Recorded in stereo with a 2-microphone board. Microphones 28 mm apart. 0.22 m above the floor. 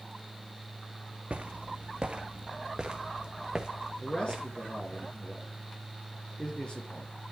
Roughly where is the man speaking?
Left.